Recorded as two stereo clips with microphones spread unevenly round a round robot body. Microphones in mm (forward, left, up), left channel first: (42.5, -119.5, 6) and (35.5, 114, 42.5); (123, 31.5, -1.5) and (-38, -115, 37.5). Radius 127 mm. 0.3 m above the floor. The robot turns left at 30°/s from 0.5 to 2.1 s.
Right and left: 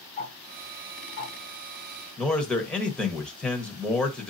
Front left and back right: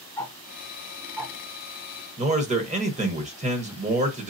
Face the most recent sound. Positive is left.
turn(degrees=-140)